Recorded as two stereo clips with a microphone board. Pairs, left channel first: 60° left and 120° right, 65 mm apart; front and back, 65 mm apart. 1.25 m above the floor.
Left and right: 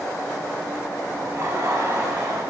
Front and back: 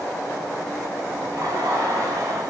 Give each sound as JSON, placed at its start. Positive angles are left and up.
{"t": 1.2, "sound": "laughter", "azimuth_deg": -155, "distance_m": 3.0}